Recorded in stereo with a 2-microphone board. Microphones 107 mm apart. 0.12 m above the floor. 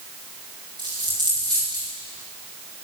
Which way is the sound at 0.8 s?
45° right (ahead or behind).